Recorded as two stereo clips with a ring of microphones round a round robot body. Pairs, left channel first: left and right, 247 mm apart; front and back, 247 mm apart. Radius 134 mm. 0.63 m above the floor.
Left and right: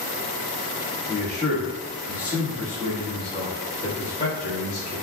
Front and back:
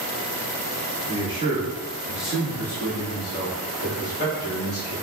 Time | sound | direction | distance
1.1 | a man speaking | 130° right | 1.3 m